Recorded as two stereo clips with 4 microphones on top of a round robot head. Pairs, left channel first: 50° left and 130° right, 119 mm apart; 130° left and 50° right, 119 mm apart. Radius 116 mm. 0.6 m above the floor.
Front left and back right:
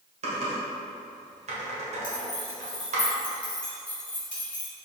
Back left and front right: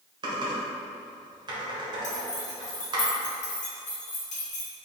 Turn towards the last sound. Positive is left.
turn(degrees=125)